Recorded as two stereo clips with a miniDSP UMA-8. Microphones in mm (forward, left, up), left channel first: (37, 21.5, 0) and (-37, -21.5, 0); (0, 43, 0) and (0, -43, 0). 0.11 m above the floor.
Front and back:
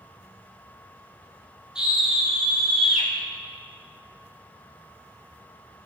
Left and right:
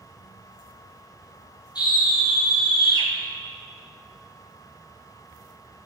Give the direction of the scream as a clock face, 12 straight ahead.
8 o'clock.